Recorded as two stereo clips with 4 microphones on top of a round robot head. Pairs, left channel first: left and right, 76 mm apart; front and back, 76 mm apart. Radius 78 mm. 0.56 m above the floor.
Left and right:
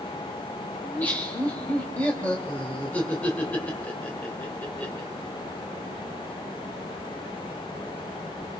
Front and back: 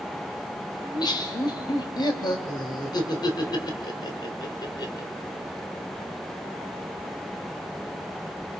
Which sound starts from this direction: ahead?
Laughter, at 0.8 s.